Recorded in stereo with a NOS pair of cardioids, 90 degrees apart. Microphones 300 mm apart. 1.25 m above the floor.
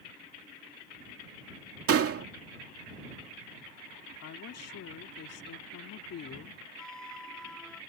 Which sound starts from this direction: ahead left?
A woman speaking, at 4.2 s.